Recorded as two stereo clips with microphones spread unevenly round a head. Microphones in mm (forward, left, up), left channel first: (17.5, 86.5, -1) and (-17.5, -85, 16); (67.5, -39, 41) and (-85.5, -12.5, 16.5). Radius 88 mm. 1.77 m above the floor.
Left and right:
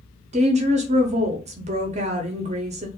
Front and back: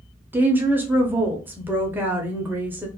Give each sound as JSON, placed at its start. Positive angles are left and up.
{"t": 0.3, "sound": "a woman speaking", "azimuth_deg": -105, "distance_m": 0.5}